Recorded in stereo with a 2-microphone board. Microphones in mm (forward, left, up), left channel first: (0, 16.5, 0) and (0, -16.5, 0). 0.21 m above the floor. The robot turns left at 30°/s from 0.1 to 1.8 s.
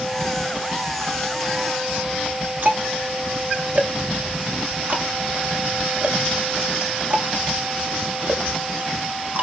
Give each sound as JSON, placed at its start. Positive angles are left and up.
{"t": 2.6, "sound": "ticking", "side_deg": -55, "distance_m": 1.3}